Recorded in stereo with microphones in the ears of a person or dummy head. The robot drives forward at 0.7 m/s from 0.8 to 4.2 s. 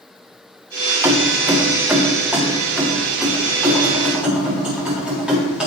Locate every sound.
1.0 s keys jangling: 15° right (ahead or behind), 1.0 m; by 5.7 s 5° right (ahead or behind), 3 m